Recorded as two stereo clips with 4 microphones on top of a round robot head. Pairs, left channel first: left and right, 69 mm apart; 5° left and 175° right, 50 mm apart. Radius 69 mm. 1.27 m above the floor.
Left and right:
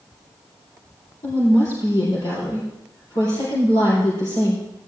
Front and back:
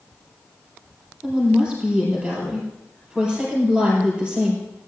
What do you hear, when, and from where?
1.2 s a woman speaking: 120° left, 4 m